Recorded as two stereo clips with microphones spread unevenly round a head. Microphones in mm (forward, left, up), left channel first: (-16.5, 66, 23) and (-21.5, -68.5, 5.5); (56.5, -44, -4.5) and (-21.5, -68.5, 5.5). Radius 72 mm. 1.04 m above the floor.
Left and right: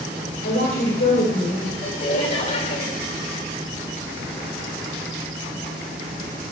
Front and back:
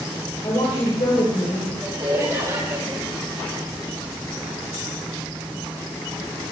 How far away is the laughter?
About 4 m.